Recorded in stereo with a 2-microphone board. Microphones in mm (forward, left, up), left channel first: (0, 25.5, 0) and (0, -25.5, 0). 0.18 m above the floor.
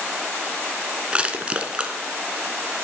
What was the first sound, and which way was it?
Crushing, 20° right (ahead or behind).